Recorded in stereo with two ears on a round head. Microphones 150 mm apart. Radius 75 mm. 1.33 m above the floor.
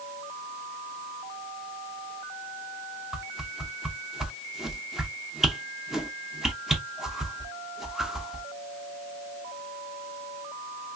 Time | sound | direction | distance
3.1 | a whoosh | centre (ahead or behind) | 0.6 m